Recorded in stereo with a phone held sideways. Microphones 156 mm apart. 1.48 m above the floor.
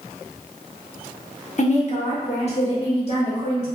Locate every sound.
1.6 s a woman speaking: 50° left (ahead or behind), 0.7 m; by 3.7 s 40° left (ahead or behind), 2.0 m